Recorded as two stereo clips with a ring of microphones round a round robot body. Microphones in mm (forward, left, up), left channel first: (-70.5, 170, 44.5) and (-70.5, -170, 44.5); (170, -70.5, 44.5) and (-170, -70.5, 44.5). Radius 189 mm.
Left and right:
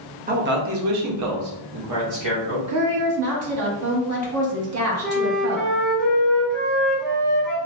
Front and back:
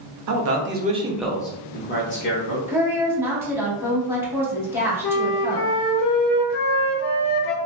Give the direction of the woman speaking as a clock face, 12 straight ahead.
3 o'clock.